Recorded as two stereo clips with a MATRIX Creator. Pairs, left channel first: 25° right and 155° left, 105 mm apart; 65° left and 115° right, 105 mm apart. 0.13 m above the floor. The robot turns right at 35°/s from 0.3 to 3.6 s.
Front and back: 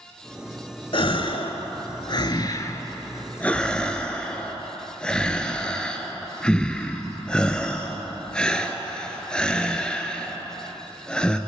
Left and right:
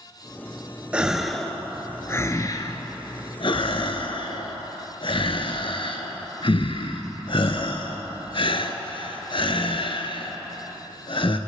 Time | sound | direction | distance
0.9 | a gasp | 35° right | 0.7 m